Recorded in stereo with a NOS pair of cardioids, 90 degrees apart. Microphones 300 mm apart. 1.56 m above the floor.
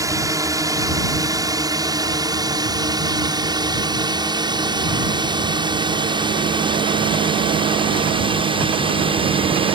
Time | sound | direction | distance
0.0 | a drone | 10° right | ?